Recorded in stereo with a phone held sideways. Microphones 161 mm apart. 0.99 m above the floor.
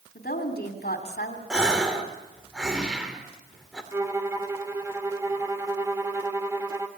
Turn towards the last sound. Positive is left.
turn(degrees=-15)  # may be behind; listen again after turning